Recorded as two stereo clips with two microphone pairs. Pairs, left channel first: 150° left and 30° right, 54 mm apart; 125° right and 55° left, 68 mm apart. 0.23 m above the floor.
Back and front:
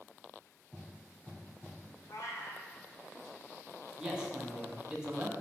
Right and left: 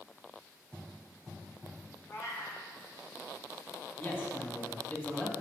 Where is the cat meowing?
Straight behind, 1.7 m.